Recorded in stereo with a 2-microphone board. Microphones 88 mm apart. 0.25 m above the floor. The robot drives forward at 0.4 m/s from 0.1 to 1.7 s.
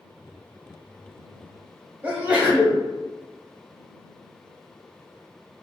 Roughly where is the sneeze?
Centre.